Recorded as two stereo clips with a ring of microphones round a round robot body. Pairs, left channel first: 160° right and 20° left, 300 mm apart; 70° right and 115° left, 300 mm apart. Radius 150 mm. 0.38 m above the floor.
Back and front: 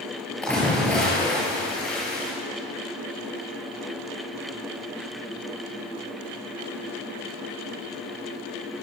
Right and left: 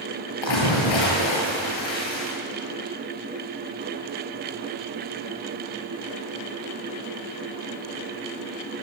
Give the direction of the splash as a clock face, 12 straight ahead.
2 o'clock.